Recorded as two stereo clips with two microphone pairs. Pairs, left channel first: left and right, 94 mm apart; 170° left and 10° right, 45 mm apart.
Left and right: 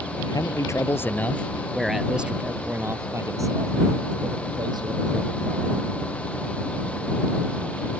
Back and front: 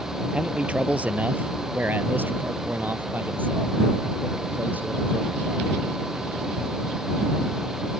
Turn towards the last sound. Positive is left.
turn(degrees=-60)